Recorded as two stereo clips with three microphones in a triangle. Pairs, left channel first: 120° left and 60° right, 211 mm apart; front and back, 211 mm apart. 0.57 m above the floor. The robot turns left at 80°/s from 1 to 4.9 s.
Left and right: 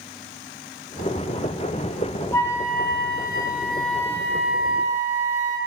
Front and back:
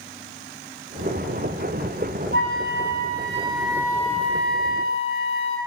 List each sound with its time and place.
2.3 s a flute: 160° right, 0.8 m; by 5.6 s 5° right, 0.8 m